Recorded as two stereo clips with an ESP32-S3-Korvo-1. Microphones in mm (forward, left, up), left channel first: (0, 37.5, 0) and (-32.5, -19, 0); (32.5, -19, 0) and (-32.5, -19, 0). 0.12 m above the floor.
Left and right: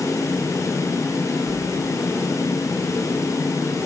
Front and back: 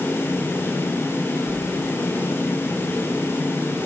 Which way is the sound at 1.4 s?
95° right.